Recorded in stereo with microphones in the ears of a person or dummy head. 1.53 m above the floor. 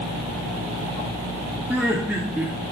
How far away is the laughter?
About 2 m.